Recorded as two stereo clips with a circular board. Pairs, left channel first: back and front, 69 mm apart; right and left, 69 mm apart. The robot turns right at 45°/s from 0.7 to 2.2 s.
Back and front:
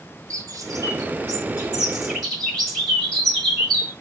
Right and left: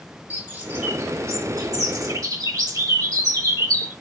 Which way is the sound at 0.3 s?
25° left.